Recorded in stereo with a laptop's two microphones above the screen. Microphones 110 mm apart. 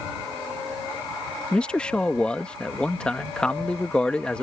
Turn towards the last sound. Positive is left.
turn(degrees=10)  # may be behind; listen again after turning